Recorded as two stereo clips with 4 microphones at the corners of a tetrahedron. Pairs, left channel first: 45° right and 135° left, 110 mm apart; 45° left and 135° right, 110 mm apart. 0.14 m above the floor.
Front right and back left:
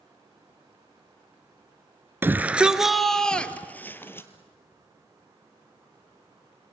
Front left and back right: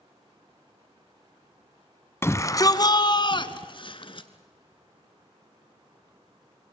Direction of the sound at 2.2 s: 85° left.